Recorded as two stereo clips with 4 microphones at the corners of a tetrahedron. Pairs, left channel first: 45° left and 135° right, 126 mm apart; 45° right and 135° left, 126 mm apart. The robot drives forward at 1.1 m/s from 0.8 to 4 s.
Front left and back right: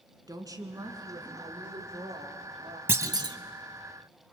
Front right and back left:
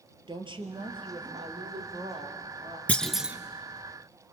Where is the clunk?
100° right, 0.8 m; by 3.4 s 155° right, 1.0 m.